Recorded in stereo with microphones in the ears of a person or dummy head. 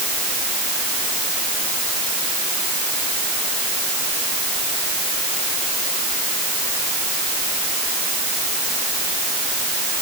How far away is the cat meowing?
No cat meowing in this recording.